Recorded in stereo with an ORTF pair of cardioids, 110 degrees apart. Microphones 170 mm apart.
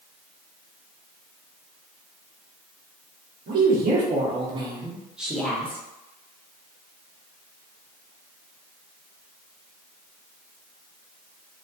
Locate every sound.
3.5 s a woman speaking: 65° right, 0.9 m; by 5.8 s 10° left, 1.0 m